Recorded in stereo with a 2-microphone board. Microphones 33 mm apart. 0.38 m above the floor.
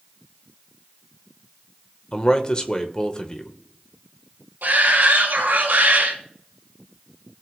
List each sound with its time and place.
2.1 s a man speaking: 30° left (ahead or behind), 1.1 m
4.6 s a shout: 75° right (ahead or behind), 3 m